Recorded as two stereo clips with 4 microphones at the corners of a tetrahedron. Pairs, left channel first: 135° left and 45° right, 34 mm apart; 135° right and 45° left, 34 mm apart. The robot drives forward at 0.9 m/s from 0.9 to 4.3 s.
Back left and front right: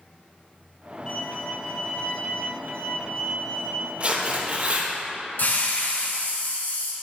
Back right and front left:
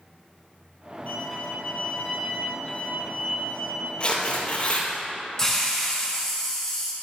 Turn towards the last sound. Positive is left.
turn(degrees=150)